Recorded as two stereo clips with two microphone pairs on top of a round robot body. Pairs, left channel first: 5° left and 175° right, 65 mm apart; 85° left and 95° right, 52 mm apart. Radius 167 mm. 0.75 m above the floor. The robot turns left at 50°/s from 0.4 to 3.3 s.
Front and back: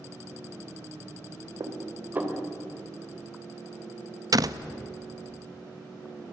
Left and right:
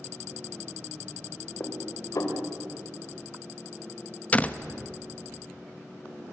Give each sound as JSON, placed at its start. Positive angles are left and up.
{"t": 1.6, "sound": "dishes clattering", "azimuth_deg": 145, "distance_m": 2.5}
{"t": 4.3, "sound": "a door slam", "azimuth_deg": 150, "distance_m": 0.9}